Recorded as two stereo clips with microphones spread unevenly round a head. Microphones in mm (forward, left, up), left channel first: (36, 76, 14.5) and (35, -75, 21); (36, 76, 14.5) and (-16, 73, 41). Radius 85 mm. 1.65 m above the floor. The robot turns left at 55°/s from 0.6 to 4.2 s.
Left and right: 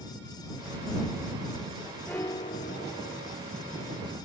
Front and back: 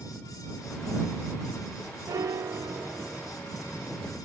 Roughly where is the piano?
Behind.